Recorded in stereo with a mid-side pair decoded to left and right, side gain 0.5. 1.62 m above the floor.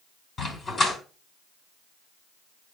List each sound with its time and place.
0.4 s a dog barking: 30° left, 5 m